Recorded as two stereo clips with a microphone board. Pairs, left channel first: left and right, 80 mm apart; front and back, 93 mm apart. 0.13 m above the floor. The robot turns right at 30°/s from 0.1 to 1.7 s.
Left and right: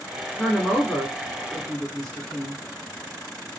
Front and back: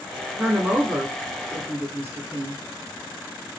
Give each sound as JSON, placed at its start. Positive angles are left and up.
{"t": 0.4, "sound": "a woman speaking", "azimuth_deg": 135, "distance_m": 1.1}